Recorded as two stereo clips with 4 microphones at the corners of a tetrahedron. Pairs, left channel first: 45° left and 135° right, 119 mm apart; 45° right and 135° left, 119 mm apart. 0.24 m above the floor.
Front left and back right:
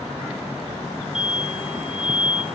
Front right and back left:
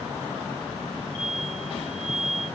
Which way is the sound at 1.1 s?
50° right.